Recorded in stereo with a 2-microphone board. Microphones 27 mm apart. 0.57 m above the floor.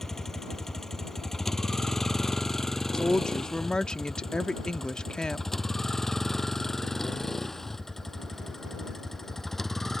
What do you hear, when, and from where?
0.0 s a vehicle: 20° left (ahead or behind); by 10.0 s 15° left (ahead or behind)
2.9 s a woman speaking: 30° left (ahead or behind)